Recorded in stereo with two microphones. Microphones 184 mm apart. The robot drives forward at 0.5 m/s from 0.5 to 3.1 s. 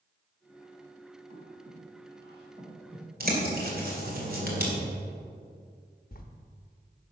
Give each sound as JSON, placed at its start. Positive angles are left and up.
{"t": 1.3, "sound": "breathing", "side_deg": -30, "distance_m": 4.0}
{"t": 3.2, "sound": "a bird", "side_deg": -55, "distance_m": 2.0}
{"t": 6.1, "sound": "writing", "side_deg": 55, "distance_m": 0.9}